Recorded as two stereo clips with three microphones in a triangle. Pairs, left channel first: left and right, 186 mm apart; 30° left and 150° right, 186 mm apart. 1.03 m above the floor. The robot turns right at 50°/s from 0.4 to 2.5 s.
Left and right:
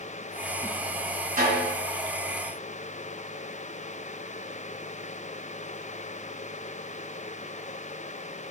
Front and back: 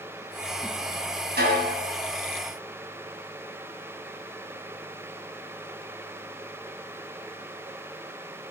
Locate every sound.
1.4 s a snare drum: 130° right, 2 m; by 1.8 s 110° right, 2 m